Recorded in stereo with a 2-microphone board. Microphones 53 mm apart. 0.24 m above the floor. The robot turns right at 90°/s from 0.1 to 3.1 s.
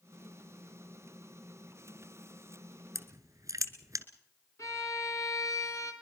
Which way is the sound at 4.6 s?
65° left (ahead or behind).